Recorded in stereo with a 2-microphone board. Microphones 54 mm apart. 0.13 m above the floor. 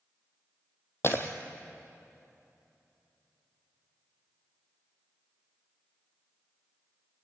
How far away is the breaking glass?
About 1.9 m.